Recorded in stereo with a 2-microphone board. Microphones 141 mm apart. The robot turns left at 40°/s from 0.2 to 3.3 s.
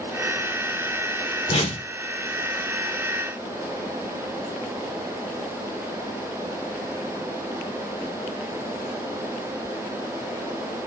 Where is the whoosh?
50° left (ahead or behind), 0.7 m; by 1.9 s 35° left (ahead or behind), 0.7 m.